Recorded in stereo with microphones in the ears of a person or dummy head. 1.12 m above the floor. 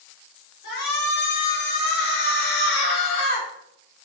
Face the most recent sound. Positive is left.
turn(degrees=50)  # may be behind; listen again after turning